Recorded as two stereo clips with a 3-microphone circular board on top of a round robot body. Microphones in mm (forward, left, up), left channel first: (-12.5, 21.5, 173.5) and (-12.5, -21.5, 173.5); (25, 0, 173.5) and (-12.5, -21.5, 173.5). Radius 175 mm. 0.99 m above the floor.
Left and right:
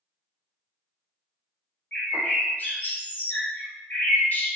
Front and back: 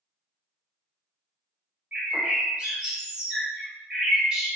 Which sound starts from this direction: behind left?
A bird, at 1.9 s.